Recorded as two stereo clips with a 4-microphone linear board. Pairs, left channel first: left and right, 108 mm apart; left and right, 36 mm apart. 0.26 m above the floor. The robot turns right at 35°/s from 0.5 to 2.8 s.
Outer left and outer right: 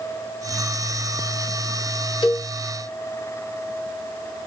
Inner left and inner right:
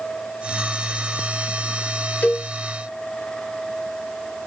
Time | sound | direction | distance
2.2 | a cowbell | 45° left (ahead or behind) | 1.2 m